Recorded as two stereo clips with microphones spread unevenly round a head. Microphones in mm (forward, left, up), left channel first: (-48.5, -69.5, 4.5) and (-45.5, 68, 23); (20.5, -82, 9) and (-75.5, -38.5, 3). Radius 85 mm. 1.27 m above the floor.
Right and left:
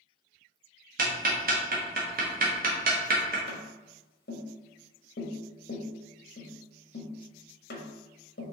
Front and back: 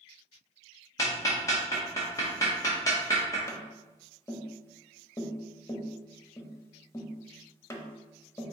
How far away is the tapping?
About 0.9 m.